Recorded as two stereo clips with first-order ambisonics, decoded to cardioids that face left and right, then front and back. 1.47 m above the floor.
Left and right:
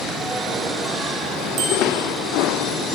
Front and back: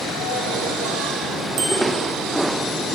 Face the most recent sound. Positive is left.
turn(degrees=-140)